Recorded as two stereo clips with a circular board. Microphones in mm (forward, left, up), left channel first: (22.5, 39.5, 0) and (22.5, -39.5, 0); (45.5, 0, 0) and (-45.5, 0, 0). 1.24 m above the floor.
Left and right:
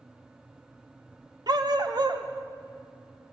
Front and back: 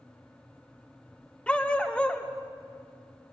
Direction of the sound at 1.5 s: 75° right.